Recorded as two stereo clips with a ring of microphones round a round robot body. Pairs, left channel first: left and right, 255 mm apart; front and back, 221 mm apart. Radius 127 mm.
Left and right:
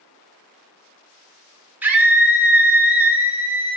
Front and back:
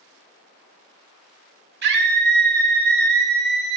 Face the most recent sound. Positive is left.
turn(degrees=-170)